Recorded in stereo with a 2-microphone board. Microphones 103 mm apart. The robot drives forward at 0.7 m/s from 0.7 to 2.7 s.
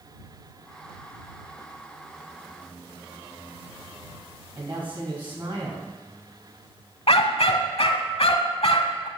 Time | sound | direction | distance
4.5 | a woman speaking | 55° right (ahead or behind) | 3 m
7.1 | a dog barking | 80° left | 0.7 m